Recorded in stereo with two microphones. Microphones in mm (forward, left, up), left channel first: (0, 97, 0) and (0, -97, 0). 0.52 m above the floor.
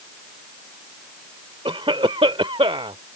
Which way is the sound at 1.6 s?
30° right (ahead or behind).